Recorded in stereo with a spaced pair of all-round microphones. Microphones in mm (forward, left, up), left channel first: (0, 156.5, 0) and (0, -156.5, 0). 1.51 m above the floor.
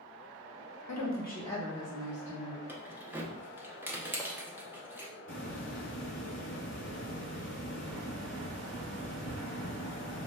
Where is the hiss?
40° left (ahead or behind), 0.7 m.